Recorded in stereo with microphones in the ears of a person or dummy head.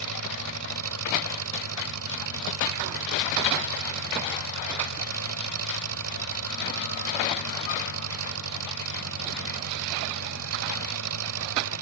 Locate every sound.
0.0 s an engine running: 80° right